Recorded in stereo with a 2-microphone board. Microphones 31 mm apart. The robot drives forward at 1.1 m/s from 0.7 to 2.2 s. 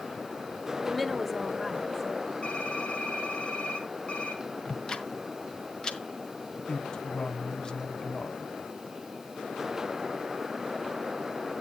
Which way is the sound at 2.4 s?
45° left (ahead or behind).